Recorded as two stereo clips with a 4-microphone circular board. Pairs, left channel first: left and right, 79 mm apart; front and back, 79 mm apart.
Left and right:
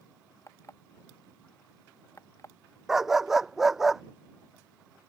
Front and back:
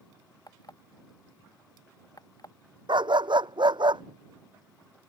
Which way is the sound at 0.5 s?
40° left.